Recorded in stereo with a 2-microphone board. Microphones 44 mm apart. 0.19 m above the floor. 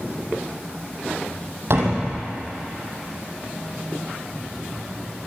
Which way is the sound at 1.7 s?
65° right (ahead or behind).